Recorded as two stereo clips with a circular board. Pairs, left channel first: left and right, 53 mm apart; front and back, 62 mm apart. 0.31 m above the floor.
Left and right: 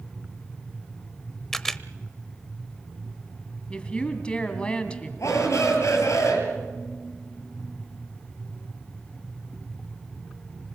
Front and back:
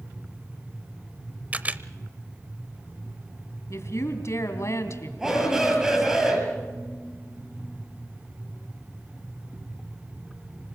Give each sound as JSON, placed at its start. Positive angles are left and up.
{"t": 1.5, "sound": "a camera shutter", "azimuth_deg": 165, "distance_m": 0.7}
{"t": 3.7, "sound": "a woman speaking", "azimuth_deg": 25, "distance_m": 2.5}
{"t": 5.2, "sound": "a shout", "azimuth_deg": 100, "distance_m": 8.0}